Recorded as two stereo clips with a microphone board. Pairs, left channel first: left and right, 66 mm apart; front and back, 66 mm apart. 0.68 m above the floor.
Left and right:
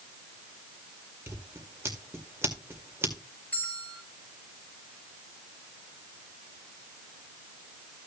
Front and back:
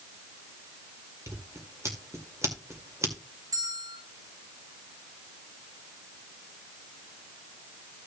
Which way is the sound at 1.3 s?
135° right.